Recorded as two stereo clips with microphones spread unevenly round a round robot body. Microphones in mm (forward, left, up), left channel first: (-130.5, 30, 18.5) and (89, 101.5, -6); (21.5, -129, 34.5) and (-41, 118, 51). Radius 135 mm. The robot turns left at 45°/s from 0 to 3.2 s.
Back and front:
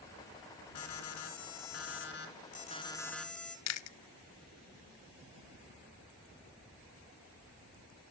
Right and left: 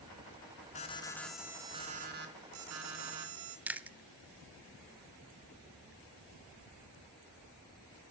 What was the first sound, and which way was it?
An alarm, 140° right.